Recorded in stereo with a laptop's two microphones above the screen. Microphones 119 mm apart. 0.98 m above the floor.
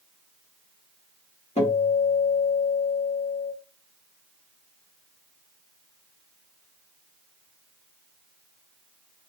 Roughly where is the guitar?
Left.